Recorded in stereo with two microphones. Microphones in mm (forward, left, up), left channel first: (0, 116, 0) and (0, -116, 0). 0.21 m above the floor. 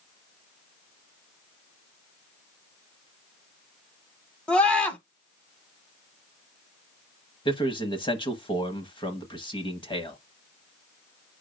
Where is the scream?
5° left (ahead or behind), 1.4 m.